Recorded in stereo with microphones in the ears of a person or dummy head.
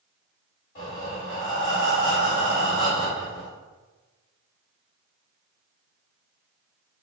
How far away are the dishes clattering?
I don't hear dishes clattering.